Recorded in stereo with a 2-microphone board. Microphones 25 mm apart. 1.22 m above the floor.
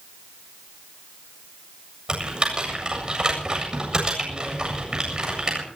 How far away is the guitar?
No guitar in this recording.